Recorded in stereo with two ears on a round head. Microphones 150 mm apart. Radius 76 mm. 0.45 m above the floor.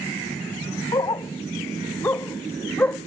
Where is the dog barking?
20° left (ahead or behind); by 3.0 s 10° left (ahead or behind).